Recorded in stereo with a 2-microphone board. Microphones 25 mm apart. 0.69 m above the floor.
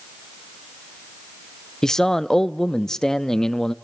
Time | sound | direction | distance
1.8 | a man speaking | 15° left (ahead or behind) | 0.6 m